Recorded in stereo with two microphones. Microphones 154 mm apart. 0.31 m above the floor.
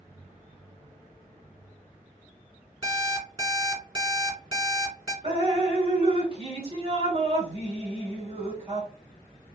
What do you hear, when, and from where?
2.8 s an alarm clock: 30° right (ahead or behind), 1.5 m
5.2 s dripping: 40° right (ahead or behind), 1.3 m